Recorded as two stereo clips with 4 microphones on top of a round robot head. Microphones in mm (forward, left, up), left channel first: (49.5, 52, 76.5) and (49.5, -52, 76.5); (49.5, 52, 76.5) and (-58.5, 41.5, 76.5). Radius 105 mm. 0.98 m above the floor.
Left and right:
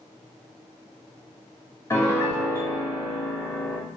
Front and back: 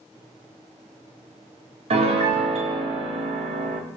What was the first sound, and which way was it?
A piano, 160° left.